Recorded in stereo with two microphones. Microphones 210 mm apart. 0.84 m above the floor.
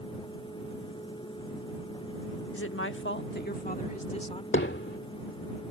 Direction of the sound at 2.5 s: 75° left (ahead or behind).